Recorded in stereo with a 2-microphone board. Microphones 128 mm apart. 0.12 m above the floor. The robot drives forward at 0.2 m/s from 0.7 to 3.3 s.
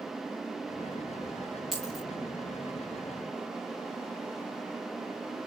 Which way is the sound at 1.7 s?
Centre (ahead or behind).